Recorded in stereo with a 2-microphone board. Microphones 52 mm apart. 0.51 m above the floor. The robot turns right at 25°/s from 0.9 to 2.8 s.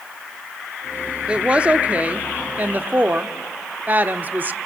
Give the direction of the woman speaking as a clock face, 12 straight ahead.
5 o'clock.